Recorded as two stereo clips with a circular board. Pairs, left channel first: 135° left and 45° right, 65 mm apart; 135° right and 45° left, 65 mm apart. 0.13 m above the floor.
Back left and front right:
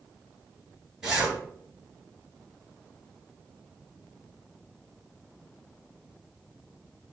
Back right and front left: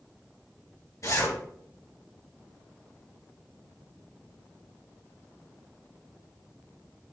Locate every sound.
1.0 s a zipper: 130° right, 2.5 m